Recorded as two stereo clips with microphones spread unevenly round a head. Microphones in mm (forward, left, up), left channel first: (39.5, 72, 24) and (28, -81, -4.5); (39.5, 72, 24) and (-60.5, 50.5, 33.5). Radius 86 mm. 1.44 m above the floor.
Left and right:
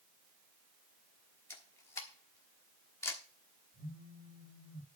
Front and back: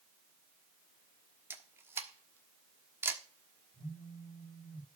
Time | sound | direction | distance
1.5 | a camera shutter | 140° left | 1.2 m
3.7 | a phone buzzing | 65° right | 7 m